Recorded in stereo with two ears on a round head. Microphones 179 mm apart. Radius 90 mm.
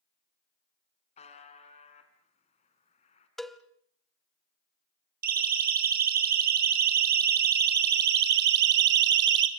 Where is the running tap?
No running tap in this recording.